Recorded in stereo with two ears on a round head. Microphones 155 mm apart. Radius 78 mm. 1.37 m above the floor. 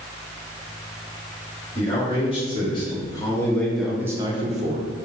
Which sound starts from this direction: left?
A man speaking, at 1.8 s.